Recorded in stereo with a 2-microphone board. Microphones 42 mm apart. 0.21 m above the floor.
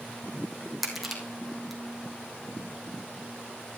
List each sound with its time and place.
0.8 s crushing: 5° right (ahead or behind), 3 m